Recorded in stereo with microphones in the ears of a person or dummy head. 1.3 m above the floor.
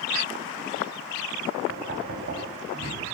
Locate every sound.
1.7 s knocking: 50° right (ahead or behind), 6.5 m